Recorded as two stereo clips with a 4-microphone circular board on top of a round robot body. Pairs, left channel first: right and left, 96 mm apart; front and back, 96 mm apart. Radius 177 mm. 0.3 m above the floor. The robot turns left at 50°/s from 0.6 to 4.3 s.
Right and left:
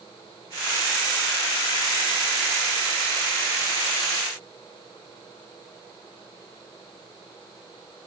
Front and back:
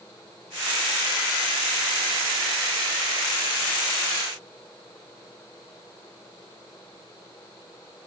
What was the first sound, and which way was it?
Only background noise.